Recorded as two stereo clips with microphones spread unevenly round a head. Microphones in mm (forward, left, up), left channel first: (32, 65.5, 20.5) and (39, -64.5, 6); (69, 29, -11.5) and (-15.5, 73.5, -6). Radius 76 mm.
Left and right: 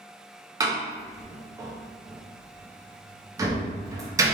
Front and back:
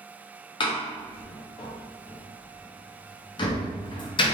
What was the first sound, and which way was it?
A door slam, 25° right.